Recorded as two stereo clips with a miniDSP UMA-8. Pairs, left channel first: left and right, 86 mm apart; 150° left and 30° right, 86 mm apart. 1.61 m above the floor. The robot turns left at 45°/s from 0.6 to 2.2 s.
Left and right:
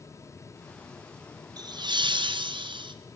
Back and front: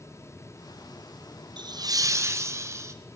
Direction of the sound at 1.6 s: 55° right.